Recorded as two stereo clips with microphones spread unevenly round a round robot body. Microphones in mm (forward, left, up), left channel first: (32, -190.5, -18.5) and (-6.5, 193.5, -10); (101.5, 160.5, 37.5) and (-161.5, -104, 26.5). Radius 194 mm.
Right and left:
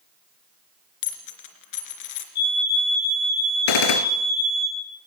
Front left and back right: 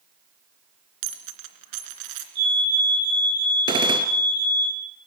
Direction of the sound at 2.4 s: 85° right.